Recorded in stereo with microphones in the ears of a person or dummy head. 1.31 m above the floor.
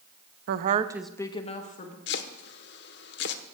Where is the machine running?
No machine running in this recording.